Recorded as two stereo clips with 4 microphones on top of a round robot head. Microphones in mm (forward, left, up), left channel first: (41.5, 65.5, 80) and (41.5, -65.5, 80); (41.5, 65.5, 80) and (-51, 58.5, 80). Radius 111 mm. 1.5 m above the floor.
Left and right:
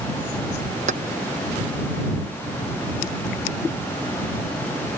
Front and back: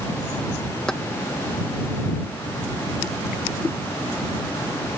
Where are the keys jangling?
80° right.